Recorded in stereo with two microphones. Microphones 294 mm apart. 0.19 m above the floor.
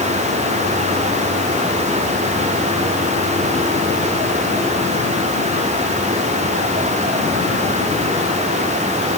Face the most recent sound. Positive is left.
No sound to turn to.